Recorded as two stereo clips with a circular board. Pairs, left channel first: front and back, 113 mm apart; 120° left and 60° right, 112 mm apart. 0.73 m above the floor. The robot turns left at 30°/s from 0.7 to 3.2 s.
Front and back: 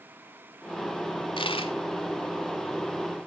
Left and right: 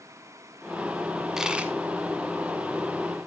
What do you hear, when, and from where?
1.4 s a dropped coin: 25° left, 1.0 m; by 1.7 s 15° left, 1.0 m